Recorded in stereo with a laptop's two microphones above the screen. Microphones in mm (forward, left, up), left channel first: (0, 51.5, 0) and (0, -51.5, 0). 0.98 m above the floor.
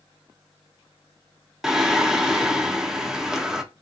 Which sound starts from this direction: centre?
Singing, at 1.6 s.